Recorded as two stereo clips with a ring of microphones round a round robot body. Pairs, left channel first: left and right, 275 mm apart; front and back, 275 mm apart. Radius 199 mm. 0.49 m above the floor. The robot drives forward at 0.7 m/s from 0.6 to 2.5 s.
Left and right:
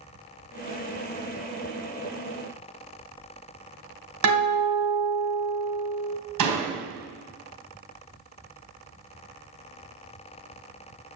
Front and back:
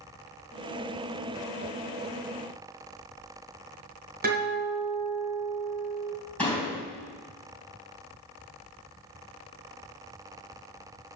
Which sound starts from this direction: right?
A door slam, at 6.4 s.